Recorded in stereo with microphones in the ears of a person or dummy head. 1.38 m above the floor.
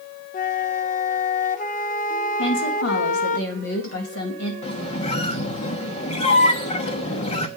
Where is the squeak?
35° left (ahead or behind), 1.2 m.